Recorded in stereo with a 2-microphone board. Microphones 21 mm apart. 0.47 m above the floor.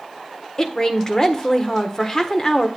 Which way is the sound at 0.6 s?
30° left (ahead or behind).